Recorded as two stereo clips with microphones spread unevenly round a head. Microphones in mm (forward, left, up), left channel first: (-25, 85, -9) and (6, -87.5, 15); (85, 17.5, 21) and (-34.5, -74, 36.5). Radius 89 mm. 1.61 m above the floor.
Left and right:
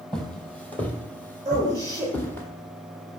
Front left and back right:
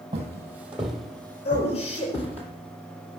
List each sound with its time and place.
0.1 s footsteps: 165° right, 1.8 m; by 2.5 s 15° left, 1.9 m
1.4 s a man speaking: 5° right, 7.5 m